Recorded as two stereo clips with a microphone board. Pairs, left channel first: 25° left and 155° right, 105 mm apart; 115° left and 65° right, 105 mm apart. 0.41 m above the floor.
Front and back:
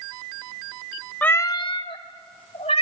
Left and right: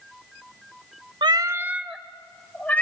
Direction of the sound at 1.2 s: 50° right.